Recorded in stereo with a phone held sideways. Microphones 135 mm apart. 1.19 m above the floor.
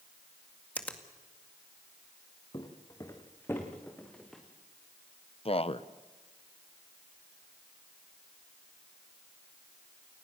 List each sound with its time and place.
0.8 s a finger snap: 10° left (ahead or behind), 2 m
2.5 s footsteps: 35° left (ahead or behind), 4 m; by 4.4 s 5° left (ahead or behind), 4.5 m
5.5 s a man speaking: 45° left (ahead or behind), 0.9 m